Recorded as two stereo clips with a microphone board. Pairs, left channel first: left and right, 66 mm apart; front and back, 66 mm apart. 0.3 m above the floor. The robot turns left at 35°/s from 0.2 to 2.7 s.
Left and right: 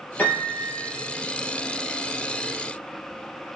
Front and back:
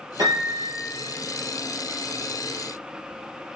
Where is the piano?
155° left, 3 m; by 0.7 s 135° left, 3 m.